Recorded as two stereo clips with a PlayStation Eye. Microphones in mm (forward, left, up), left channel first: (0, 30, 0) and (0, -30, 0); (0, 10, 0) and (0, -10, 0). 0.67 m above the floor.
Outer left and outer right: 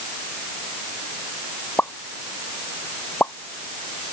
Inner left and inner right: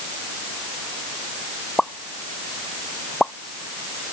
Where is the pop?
35° left (ahead or behind).